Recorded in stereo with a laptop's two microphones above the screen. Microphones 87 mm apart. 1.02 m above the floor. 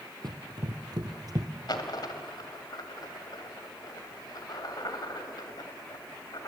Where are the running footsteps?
55° right (ahead or behind), 2.0 m; by 1.5 s 45° right (ahead or behind), 1.4 m.